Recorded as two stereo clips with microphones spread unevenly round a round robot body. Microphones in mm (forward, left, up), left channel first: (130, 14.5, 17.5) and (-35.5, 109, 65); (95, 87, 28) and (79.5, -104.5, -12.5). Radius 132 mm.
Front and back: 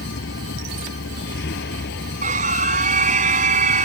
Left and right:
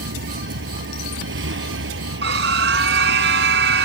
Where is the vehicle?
75° right; by 3.9 s 80° right.